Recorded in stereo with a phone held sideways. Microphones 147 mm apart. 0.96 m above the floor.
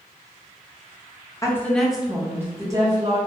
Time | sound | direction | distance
1.4 | a woman speaking | 20° left (ahead or behind) | 0.5 m